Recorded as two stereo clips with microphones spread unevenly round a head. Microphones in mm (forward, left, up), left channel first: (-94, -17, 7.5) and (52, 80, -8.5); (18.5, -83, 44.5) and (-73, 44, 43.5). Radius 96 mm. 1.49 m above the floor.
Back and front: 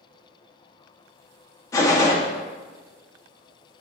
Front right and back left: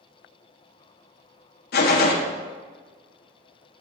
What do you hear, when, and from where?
1.7 s a gunshot: 70° right, 0.9 m